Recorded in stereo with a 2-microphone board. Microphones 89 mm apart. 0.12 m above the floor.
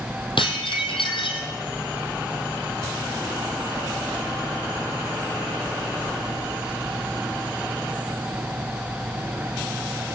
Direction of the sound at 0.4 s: 70° left (ahead or behind).